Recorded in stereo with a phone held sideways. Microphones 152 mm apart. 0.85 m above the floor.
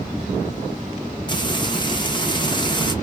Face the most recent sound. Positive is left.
turn(degrees=30)  # may be behind; listen again after turning